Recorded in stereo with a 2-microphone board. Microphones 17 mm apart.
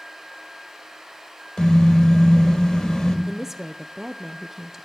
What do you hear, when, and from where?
1.6 s a car horn: 50° left (ahead or behind), 4 m
3.3 s a woman speaking: 20° right (ahead or behind), 0.6 m